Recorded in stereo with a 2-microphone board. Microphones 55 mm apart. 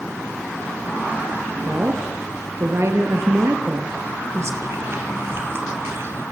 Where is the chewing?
45° right (ahead or behind), 3 m.